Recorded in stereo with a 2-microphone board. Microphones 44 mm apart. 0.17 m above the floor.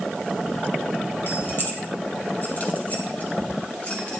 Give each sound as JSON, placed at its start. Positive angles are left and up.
{"t": 1.3, "sound": "keys jangling", "side_deg": 60, "distance_m": 1.9}